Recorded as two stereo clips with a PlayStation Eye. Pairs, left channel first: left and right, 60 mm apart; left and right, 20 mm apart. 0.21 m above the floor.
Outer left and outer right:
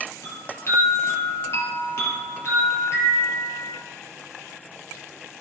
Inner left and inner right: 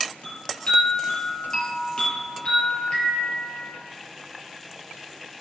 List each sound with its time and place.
0.2 s a chime: 45° left (ahead or behind), 3 m